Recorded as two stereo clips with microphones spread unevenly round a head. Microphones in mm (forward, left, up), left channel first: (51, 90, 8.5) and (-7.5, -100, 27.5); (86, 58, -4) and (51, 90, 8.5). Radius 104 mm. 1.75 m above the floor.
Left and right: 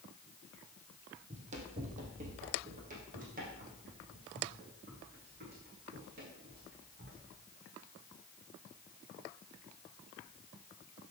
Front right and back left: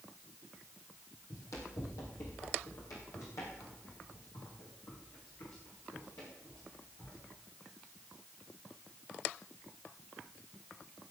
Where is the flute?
I don't hear a flute.